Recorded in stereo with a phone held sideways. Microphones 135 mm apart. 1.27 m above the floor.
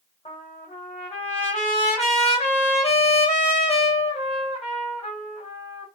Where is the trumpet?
50° left (ahead or behind), 1.5 m.